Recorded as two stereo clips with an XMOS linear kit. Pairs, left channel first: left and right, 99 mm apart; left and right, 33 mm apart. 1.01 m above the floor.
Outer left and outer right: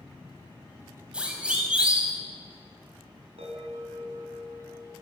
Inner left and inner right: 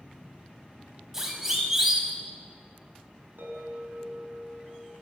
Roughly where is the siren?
Centre.